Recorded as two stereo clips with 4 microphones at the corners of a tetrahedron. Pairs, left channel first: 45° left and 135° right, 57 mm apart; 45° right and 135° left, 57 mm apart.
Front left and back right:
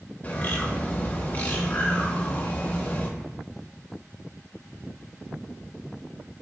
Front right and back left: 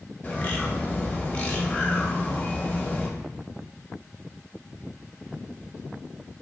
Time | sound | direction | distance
0.2 | a bird | 5° right | 0.7 m